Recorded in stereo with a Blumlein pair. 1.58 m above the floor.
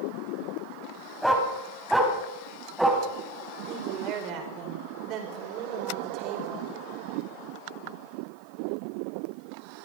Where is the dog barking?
Straight ahead, 4 m; by 3.0 s 5° right, 4.5 m.